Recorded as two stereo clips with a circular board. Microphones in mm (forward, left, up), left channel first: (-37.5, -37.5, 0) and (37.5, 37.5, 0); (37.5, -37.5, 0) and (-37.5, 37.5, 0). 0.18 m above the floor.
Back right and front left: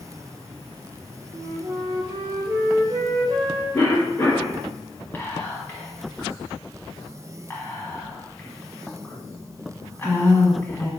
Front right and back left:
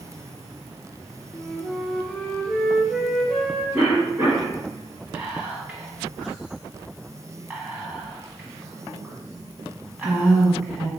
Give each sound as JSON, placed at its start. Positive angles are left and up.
{"t": 1.3, "sound": "a flute", "azimuth_deg": 40, "distance_m": 0.7}
{"t": 3.7, "sound": "a cough", "azimuth_deg": -175, "distance_m": 1.8}
{"t": 5.1, "sound": "whispering", "azimuth_deg": -165, "distance_m": 1.2}